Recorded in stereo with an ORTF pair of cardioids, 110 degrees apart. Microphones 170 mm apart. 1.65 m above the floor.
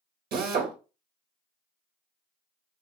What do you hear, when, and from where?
0.3 s a drill: 65° right, 0.9 m